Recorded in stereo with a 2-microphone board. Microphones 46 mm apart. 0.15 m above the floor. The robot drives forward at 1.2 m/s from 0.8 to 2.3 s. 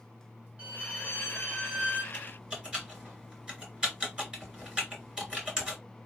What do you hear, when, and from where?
0.6 s a violin: 20° right (ahead or behind), 3 m; by 2.0 s 30° right (ahead or behind), 1.9 m
2.1 s typing on a keyboard: 15° right (ahead or behind), 3 m